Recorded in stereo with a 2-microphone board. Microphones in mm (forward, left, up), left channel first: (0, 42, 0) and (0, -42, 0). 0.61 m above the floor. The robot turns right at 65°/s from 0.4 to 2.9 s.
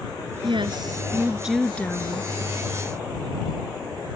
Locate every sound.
0.4 s a woman speaking: 75° right; by 2.3 s 50° left